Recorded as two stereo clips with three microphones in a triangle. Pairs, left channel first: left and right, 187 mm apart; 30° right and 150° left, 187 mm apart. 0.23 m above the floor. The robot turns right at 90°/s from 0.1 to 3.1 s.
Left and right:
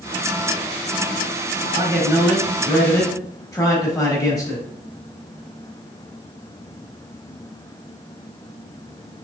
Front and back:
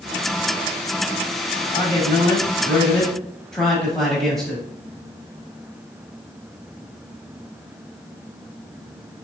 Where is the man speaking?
70° right, 1.0 m; by 4.7 s 55° left, 1.0 m.